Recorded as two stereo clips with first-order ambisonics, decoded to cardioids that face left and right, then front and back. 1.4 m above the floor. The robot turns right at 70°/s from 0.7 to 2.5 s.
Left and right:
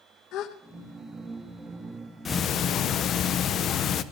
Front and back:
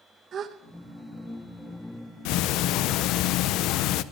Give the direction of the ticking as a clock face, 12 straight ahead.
11 o'clock.